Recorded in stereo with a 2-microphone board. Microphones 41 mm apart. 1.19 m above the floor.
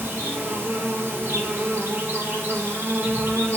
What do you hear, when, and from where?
0.0 s an insect: 75° right (ahead or behind), 1.5 m